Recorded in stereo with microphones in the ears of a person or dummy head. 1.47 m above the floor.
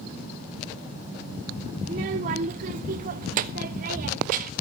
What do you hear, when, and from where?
1.8 s a child speaking: 20° right (ahead or behind), 0.5 m; by 4.5 s 50° right (ahead or behind), 1.7 m